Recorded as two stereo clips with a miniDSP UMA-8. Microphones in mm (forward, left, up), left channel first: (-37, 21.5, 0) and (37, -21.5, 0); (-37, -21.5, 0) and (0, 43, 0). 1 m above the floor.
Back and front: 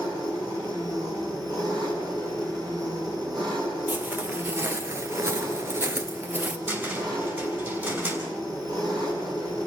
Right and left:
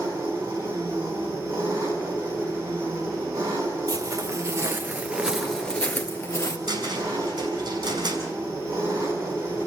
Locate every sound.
0.0 s an engine running: 10° left, 6 m
3.9 s footsteps: 35° left, 1.8 m; by 6.6 s 95° right, 1.5 m
6.7 s a cupboard door: 35° left, 5.5 m